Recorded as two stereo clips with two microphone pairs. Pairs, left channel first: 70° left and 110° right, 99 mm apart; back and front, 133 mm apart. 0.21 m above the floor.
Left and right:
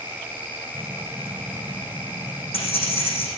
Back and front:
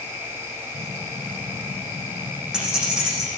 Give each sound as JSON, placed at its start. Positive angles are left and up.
{"t": 0.7, "sound": "keys jangling", "azimuth_deg": 85, "distance_m": 8.0}